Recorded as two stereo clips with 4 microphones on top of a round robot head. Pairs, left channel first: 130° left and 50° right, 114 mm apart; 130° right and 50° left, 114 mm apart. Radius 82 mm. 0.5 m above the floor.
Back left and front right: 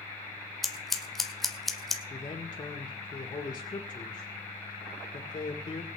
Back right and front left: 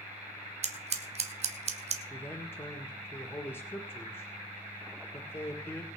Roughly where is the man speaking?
Behind.